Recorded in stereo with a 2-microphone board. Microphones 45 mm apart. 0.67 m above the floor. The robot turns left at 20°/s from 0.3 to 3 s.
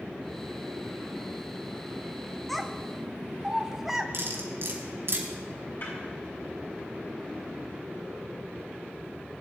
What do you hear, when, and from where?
2.5 s a child speaking: 5° left (ahead or behind), 0.8 m; by 4.0 s 5° right (ahead or behind), 0.8 m
4.1 s cutlery clinking: 65° right (ahead or behind), 3 m
5.8 s a snare drum: 55° left (ahead or behind), 7.5 m